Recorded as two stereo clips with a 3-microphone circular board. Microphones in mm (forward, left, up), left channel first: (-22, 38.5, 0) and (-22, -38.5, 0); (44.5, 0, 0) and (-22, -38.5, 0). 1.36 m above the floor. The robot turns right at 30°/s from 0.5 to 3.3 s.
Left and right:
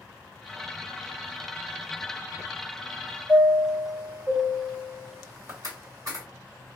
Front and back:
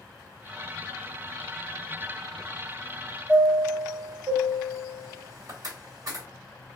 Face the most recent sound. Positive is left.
turn(degrees=-125)